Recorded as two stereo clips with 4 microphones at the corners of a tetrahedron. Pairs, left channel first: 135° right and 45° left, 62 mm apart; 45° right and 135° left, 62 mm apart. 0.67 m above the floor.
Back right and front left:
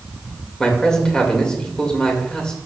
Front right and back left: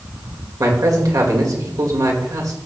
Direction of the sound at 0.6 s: 145° left.